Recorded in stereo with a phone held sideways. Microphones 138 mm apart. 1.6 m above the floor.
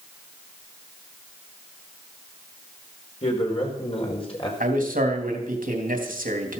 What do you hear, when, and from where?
3.2 s a man speaking: 45° left (ahead or behind), 5 m; by 4.5 s 40° left (ahead or behind), 4.5 m
4.6 s a man speaking: 85° right, 3 m